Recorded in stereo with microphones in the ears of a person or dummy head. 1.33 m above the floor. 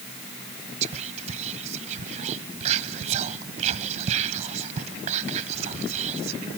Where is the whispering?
45° right (ahead or behind), 0.9 m.